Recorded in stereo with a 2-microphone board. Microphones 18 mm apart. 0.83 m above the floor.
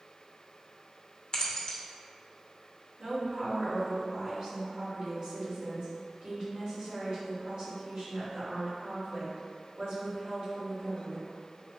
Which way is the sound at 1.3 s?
40° left (ahead or behind).